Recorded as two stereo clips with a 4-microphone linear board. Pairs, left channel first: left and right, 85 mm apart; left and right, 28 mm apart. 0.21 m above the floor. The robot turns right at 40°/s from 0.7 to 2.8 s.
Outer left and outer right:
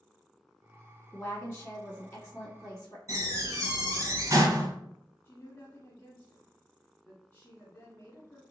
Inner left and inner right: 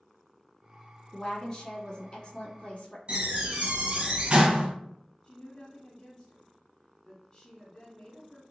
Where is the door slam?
40° right (ahead or behind), 1.4 m.